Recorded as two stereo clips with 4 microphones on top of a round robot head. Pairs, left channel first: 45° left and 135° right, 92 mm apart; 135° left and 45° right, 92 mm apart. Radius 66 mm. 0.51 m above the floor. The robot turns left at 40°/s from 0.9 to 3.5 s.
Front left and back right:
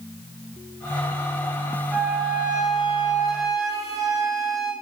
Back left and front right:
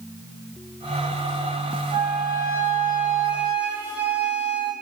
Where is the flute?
40° right, 1.4 m; by 4.7 s 105° right, 1.4 m.